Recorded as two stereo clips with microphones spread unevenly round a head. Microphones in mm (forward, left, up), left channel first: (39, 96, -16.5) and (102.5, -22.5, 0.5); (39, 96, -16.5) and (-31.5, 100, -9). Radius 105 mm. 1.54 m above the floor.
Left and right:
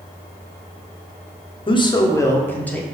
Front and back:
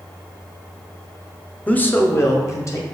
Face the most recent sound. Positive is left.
turn(degrees=40)